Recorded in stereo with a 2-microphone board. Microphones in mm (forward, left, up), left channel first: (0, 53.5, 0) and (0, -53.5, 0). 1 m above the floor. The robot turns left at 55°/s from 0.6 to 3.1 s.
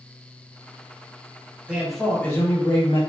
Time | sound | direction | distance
1.7 | a man speaking | 165° right | 0.9 m